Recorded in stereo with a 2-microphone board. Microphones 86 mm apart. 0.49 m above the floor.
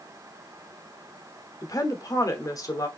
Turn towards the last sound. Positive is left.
turn(degrees=45)  # may be behind; listen again after turning